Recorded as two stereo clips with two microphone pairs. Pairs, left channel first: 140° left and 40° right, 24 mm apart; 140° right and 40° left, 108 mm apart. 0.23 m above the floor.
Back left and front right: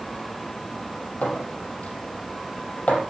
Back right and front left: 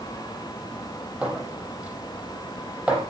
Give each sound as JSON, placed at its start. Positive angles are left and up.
{"t": 1.2, "sound": "a clink", "azimuth_deg": 120, "distance_m": 4.5}